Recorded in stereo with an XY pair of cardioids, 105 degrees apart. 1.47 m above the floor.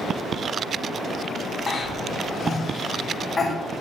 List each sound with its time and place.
1.7 s a cough: 35° left, 0.8 m